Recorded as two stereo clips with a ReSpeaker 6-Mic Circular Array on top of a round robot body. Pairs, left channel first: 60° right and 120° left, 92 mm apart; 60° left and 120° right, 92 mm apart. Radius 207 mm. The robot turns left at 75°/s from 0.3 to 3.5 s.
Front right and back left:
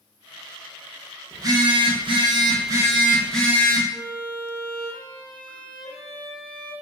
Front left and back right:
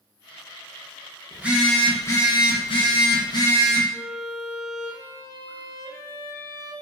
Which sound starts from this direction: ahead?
A violin, at 3.9 s.